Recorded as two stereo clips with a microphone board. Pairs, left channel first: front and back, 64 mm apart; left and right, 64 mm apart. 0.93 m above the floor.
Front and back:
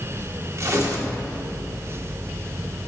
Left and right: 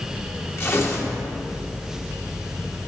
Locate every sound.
0.6 s tearing paper: 140° left, 1.7 m